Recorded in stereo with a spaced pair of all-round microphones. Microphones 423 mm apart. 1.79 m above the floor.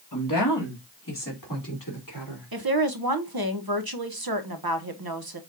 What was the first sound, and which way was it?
A woman speaking, 50° left (ahead or behind).